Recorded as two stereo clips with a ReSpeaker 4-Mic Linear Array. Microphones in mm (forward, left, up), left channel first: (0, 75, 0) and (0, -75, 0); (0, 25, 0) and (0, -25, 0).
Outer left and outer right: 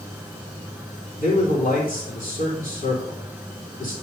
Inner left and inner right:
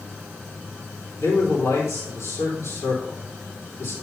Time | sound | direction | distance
1.2 | a man speaking | 70° left (ahead or behind) | 4 m